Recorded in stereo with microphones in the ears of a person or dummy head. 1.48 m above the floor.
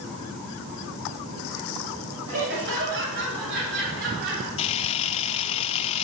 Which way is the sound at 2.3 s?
70° right (ahead or behind).